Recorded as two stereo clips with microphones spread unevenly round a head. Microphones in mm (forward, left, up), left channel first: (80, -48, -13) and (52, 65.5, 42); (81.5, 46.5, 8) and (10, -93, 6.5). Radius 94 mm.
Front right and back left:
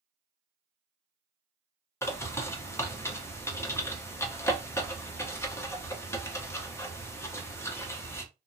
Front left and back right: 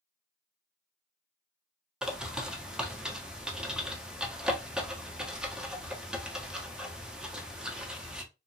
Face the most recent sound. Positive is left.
turn(degrees=-30)